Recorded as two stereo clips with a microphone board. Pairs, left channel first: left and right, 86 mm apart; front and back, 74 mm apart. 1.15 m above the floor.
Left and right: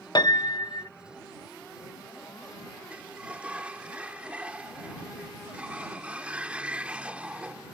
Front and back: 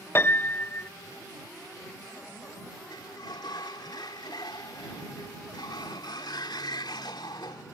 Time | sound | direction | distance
0.1 | a piano | 60° left | ?
2.9 | a sliding door | 15° right | ?